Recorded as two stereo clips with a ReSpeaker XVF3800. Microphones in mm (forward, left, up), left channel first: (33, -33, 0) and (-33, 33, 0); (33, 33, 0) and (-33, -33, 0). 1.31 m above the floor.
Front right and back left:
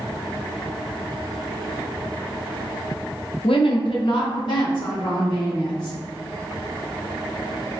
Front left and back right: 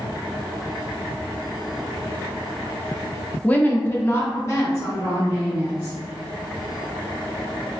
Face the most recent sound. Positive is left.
turn(degrees=-10)